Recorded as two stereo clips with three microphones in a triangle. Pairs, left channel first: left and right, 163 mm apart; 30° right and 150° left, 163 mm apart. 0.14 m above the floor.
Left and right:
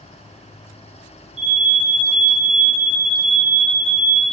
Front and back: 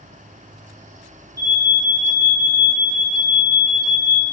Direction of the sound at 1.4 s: 100° left.